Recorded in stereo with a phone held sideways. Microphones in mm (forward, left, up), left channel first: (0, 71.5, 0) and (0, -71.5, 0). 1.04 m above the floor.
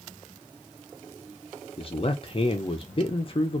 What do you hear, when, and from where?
1.8 s a man speaking: 40° left (ahead or behind), 0.5 m